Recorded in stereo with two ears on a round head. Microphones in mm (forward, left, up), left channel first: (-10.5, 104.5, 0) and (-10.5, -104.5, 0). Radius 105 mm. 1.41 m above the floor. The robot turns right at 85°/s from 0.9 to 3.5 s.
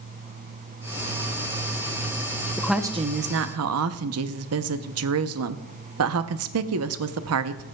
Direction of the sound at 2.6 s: 170° left.